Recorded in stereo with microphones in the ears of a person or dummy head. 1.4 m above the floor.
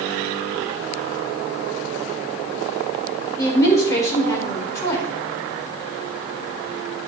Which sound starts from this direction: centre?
A woman speaking, at 3.4 s.